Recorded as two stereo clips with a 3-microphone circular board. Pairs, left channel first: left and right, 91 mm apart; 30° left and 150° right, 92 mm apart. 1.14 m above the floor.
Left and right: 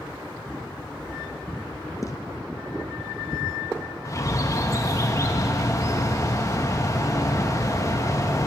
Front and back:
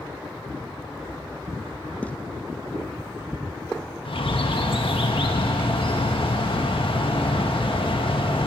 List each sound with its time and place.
2.0 s footsteps: 95° left, 1.3 m
4.0 s a bird: 35° left, 1.6 m